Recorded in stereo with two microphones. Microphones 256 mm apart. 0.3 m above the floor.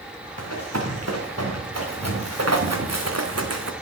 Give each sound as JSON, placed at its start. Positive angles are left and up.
{"t": 0.4, "sound": "running footsteps", "side_deg": -85, "distance_m": 3.0}